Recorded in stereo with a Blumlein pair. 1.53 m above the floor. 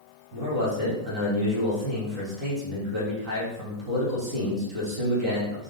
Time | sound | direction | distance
0.3 | a man speaking | 30° right | 2 m